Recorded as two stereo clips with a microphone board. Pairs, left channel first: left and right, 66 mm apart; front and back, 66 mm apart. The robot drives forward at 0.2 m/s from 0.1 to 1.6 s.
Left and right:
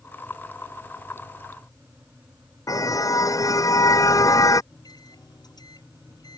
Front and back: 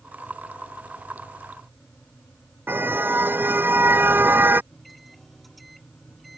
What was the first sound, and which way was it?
A car horn, 120° left.